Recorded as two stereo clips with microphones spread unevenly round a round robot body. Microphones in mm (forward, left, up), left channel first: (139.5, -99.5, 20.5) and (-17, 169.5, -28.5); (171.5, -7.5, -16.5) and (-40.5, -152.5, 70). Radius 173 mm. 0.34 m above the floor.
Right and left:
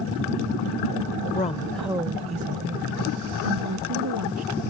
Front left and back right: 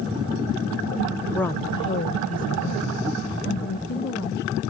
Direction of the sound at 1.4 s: 5° right.